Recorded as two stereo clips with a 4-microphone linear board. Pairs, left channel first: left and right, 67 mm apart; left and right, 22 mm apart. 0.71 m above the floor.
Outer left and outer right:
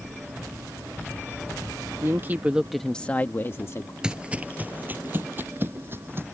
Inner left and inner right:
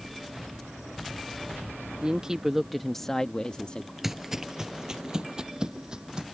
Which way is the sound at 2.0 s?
40° right (ahead or behind).